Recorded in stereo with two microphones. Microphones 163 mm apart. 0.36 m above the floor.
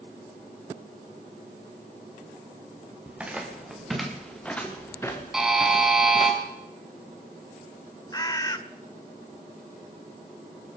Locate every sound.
3.1 s footsteps: 10° right (ahead or behind), 3.5 m; by 6.3 s 40° left (ahead or behind), 2.5 m
5.3 s a buzzer: 5° right (ahead or behind), 3 m
8.1 s a bird: 25° left (ahead or behind), 0.7 m